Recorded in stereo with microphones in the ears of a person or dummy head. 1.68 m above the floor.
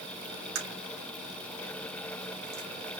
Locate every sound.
0.6 s a crack: 85° right, 3 m